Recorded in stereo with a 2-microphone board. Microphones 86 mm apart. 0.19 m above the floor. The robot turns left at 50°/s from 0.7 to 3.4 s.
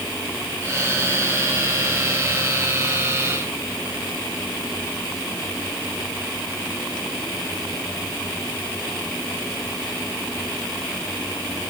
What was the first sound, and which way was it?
Only background noise.